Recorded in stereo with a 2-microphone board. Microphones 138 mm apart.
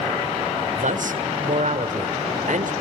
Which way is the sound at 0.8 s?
70° right (ahead or behind).